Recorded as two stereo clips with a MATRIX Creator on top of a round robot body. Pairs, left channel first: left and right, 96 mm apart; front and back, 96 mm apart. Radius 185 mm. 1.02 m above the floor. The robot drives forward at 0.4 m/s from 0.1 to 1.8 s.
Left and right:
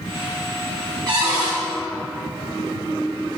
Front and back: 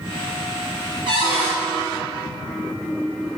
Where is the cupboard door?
140° right, 1.0 m; by 1.6 s 145° right, 1.2 m.